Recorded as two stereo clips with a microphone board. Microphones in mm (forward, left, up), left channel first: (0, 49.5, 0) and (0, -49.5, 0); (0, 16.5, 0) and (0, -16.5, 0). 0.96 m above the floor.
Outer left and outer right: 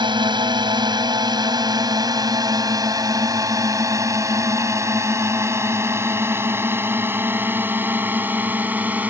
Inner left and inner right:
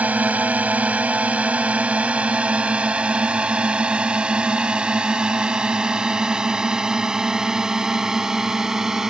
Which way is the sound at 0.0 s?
50° right (ahead or behind).